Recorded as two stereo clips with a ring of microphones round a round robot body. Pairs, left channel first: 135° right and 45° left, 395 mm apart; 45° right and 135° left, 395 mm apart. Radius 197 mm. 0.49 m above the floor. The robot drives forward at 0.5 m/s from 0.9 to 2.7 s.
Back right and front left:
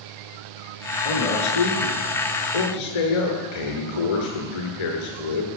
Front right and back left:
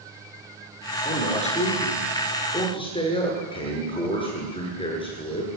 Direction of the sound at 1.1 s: 120° right.